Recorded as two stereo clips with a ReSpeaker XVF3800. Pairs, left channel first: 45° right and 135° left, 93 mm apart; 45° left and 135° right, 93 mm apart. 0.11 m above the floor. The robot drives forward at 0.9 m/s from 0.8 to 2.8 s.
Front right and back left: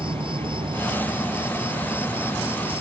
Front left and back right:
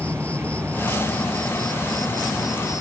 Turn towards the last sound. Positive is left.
turn(degrees=140)